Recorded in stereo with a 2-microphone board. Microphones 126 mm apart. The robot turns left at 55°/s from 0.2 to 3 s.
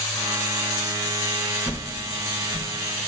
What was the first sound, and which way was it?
A whoosh, 10° right (ahead or behind).